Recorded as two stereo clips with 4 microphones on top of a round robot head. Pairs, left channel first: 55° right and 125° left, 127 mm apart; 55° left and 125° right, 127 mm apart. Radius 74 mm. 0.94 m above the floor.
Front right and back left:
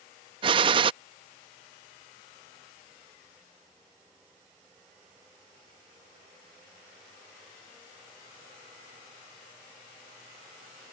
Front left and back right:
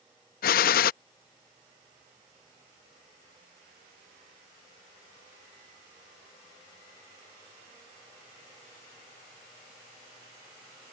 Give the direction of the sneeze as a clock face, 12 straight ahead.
I don't hear a sneeze.